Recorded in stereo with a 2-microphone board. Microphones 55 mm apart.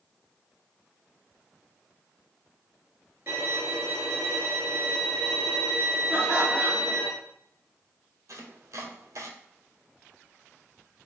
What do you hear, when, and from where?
3.3 s a violin: 45° right (ahead or behind), 1.9 m
6.1 s laughter: 30° right (ahead or behind), 1.7 m
8.3 s chopping: 65° right (ahead or behind), 0.7 m